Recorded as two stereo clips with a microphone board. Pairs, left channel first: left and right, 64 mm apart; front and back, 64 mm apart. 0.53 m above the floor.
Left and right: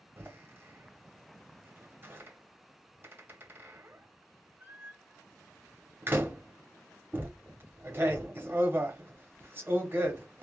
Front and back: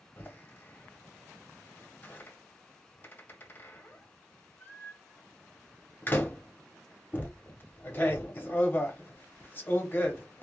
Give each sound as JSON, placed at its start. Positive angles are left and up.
{"t": 0.2, "sound": "a door slam", "azimuth_deg": -45, "distance_m": 0.9}